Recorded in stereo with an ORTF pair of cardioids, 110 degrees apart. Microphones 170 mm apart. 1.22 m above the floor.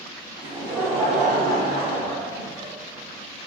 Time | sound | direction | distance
0.4 | laughter | 25° right | 1.2 m